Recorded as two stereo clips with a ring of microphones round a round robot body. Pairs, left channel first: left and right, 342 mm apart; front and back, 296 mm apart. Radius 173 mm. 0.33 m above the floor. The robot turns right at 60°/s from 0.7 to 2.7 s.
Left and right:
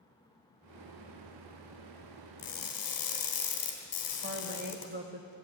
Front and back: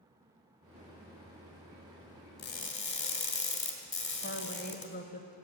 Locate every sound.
2.4 s crushing: 30° left, 3 m; by 4.9 s 50° left, 3 m
4.2 s a woman speaking: 40° right, 1.8 m